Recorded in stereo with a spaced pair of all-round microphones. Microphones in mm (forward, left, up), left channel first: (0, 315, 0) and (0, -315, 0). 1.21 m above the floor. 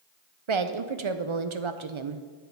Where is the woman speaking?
50° right (ahead or behind), 0.6 m.